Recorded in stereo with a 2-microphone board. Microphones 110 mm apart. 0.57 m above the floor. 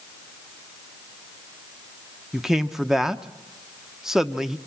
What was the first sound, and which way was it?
A man speaking, 5° right (ahead or behind).